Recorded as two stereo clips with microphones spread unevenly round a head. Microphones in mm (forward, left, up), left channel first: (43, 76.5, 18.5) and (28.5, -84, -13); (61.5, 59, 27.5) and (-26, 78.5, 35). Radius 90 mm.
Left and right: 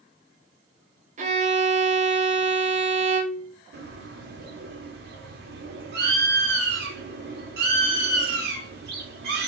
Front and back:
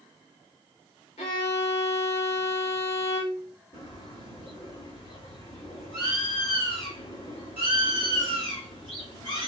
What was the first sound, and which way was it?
A violin, 50° right.